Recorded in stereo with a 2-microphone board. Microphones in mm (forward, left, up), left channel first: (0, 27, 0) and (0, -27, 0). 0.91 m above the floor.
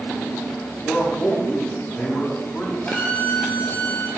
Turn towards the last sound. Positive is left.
turn(degrees=30)  # may be behind; listen again after turning